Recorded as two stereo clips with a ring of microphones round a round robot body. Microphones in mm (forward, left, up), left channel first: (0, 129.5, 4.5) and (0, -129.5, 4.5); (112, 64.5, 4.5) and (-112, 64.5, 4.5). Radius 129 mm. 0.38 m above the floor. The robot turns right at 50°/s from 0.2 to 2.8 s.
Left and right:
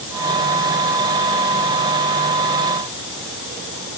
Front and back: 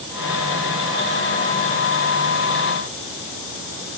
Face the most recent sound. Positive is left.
No sound to turn to.